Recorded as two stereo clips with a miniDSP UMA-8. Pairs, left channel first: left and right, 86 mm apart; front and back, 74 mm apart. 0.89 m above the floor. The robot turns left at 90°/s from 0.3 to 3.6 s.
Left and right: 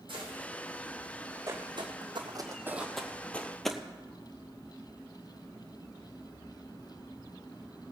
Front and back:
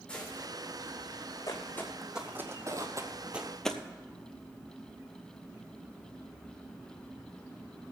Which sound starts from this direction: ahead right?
Footsteps, at 1.5 s.